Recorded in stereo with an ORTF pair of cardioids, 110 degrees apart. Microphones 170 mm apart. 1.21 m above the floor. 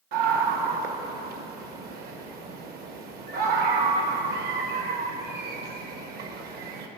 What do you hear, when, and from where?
0.1 s a scream: 65° right, 1.2 m